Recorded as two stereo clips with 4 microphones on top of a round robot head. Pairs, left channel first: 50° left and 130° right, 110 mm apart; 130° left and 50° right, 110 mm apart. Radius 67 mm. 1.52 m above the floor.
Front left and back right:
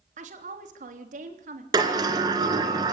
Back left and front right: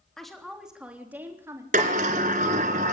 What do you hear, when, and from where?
0.2 s a woman speaking: 145° right, 3.5 m; by 1.6 s 120° right, 3.5 m
1.7 s a sliding door: 75° right, 3 m